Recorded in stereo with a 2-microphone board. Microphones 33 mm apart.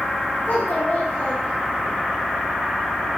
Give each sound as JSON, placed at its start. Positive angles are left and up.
{"t": 0.5, "sound": "a child speaking", "side_deg": 75, "distance_m": 6.5}